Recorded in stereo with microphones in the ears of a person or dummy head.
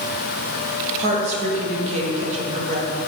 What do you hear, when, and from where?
1.0 s a woman speaking: 40° right (ahead or behind), 1.3 m